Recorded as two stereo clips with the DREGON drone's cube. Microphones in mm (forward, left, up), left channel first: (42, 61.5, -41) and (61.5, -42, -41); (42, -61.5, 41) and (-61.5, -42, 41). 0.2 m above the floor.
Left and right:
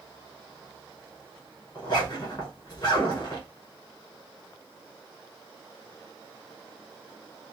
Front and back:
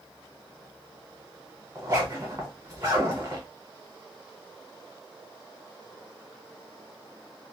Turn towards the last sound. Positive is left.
turn(degrees=125)